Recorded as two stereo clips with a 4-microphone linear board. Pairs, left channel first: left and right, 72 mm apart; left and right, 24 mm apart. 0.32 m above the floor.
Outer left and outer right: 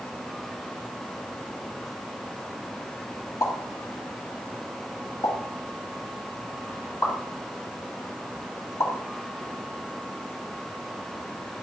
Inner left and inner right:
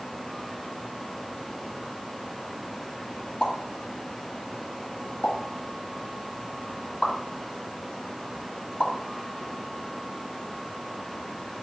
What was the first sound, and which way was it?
A pop, 50° left (ahead or behind).